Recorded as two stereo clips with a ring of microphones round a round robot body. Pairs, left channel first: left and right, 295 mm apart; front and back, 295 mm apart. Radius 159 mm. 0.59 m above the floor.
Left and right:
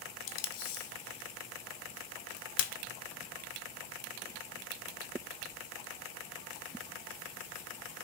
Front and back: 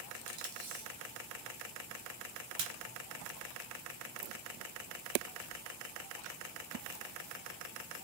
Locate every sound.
0.3 s tape being pulled: 105° left, 0.7 m